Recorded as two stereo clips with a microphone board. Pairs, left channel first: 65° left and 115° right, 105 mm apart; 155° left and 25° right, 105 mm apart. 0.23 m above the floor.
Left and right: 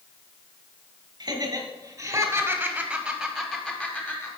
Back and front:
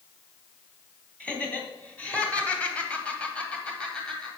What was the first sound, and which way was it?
Laughter, 130° right.